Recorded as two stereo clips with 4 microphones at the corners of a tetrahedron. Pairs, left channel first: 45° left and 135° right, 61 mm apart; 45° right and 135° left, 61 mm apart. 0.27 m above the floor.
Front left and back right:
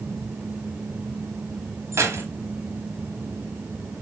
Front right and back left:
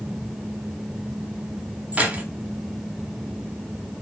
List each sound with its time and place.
1.9 s keys jangling: 160° right, 1.2 m